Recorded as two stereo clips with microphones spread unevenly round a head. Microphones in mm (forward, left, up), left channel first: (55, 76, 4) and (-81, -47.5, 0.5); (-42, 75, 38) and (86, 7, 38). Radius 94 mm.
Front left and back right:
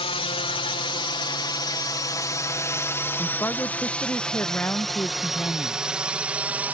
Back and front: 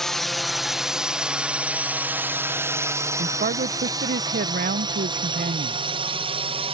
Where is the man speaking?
40° right.